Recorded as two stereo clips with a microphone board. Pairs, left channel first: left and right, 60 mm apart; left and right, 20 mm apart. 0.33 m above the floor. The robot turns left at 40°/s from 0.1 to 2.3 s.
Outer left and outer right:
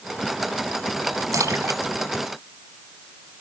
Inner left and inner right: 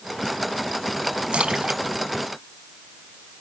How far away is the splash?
About 1.2 m.